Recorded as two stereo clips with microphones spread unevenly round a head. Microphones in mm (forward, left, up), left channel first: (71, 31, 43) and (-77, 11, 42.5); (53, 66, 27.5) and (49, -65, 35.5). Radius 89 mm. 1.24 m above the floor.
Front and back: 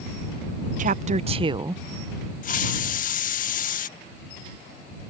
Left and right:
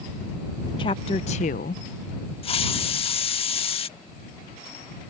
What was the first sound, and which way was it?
A woman speaking, 150° left.